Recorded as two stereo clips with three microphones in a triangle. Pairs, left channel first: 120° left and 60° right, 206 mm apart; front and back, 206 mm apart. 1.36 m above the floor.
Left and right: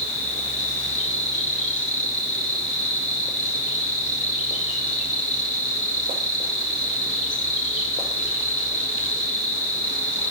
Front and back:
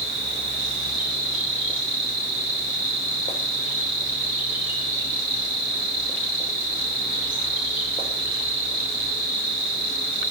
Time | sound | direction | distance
0.0 | an insect | 15° right | 3 m